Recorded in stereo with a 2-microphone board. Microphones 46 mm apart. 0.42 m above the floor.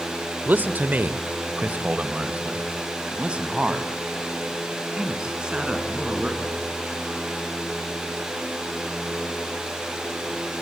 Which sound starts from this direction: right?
A man speaking, at 0.5 s.